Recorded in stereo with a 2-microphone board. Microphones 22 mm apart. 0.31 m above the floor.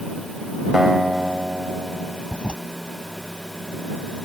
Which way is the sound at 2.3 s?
60° left (ahead or behind).